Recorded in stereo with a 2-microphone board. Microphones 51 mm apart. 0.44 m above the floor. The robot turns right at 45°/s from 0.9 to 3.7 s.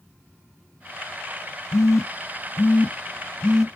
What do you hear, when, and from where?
1.7 s a phone buzzing: 85° left, 0.5 m; by 3.7 s 5° left (ahead or behind), 0.5 m